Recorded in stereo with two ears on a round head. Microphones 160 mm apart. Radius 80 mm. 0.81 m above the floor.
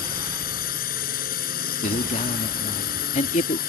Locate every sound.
0.0 s a drone: 50° left (ahead or behind)
1.8 s a man speaking: 40° left (ahead or behind)